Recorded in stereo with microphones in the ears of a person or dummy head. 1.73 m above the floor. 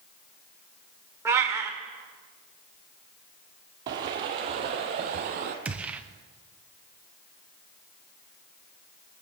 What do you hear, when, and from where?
1.2 s a cat meowing: 20° right (ahead or behind), 2 m
3.9 s footsteps: 25° right (ahead or behind), 1.9 m; by 5.5 s 50° right (ahead or behind), 2.5 m
5.7 s a gunshot: 10° right (ahead or behind), 1.0 m